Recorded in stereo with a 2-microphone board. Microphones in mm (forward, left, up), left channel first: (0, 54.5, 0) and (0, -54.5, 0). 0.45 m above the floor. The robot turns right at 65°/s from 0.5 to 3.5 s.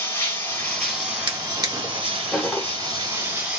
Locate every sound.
0.0 s running water: 155° left, 1.9 m; by 3.6 s 10° right, 1.9 m
1.3 s a drawer: 50° right (ahead or behind), 0.8 m; by 2.7 s 15° left (ahead or behind), 0.8 m